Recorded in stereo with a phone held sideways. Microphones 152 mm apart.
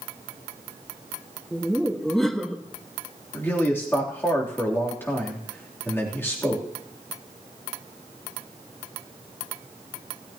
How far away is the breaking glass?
I don't hear breaking glass.